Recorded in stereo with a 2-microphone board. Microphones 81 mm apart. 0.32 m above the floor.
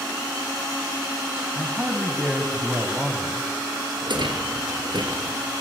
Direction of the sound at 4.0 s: 70° right (ahead or behind).